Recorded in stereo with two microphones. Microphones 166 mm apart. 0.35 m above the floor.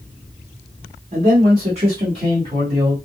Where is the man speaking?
45° right (ahead or behind), 2 m; by 3.0 s 30° right (ahead or behind), 3 m.